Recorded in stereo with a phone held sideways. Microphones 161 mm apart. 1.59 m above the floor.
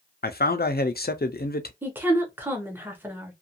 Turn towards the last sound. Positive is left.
turn(degrees=-10)  # may be behind; listen again after turning